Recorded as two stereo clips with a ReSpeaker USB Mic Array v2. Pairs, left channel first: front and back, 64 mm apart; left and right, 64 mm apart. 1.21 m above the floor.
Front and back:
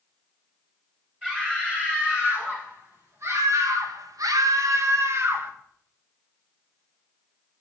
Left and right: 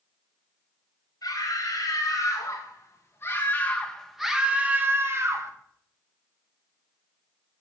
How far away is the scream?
About 3 m.